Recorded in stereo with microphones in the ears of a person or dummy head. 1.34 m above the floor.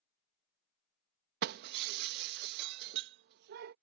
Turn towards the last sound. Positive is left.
turn(degrees=-55)  # may be behind; listen again after turning